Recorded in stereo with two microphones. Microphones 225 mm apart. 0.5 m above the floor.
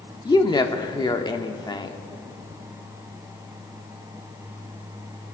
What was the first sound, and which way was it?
A woman speaking, 20° left (ahead or behind).